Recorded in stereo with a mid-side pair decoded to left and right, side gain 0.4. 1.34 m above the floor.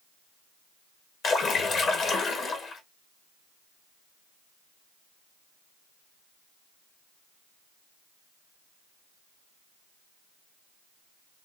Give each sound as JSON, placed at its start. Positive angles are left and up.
{"t": 1.2, "sound": "a splash", "azimuth_deg": 70, "distance_m": 1.8}